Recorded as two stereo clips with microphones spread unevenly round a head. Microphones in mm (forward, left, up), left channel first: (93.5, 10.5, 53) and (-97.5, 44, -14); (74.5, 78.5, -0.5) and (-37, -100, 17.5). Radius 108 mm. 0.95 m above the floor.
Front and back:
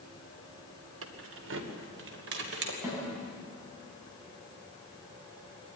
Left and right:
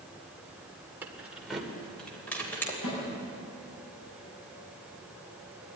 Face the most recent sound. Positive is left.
turn(degrees=90)